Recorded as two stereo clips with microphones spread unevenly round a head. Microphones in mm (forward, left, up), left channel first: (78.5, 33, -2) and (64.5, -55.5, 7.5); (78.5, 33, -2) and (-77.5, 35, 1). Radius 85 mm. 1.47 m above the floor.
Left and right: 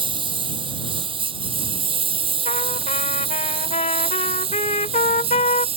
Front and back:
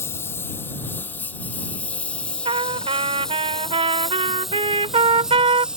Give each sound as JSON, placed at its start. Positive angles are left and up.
{"t": 0.0, "sound": "a lawn mower", "azimuth_deg": -80}
{"t": 2.5, "sound": "a trumpet", "azimuth_deg": 125}